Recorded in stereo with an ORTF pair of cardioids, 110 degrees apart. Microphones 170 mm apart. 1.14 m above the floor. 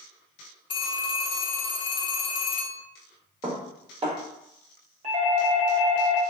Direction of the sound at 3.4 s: 35° right.